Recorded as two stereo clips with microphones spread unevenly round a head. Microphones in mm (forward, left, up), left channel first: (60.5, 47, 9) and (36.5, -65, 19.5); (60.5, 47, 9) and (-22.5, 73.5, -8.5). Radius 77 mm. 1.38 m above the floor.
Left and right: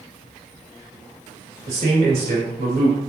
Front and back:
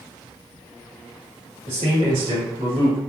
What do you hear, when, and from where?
1.7 s a man speaking: 155° right, 2.5 m